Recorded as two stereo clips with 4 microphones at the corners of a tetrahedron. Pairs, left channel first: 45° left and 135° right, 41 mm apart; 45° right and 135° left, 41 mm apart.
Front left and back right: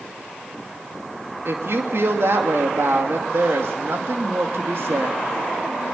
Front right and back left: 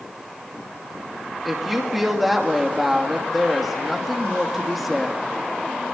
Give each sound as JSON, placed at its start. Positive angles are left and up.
{"t": 1.4, "sound": "a woman speaking", "azimuth_deg": -135, "distance_m": 2.5}